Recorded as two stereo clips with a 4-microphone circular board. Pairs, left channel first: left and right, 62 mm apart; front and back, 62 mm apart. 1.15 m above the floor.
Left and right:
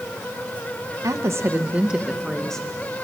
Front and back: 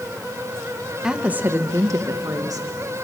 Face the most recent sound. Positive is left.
turn(degrees=165)